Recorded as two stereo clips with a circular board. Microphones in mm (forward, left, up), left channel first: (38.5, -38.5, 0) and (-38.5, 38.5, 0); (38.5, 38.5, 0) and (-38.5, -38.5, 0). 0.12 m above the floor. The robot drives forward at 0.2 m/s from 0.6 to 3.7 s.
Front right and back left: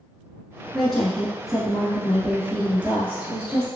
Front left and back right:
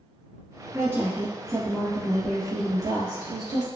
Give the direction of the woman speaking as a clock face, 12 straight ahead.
4 o'clock.